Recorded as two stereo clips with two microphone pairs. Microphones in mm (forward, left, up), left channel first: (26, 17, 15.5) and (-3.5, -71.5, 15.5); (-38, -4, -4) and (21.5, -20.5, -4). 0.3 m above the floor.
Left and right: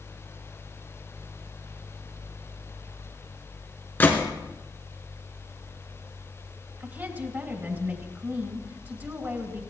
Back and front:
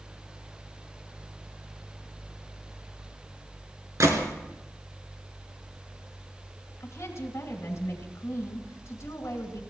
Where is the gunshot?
5° left, 2.5 m.